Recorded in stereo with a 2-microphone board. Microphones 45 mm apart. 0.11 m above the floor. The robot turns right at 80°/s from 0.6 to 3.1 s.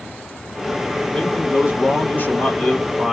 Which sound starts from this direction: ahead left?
A man speaking, at 1.1 s.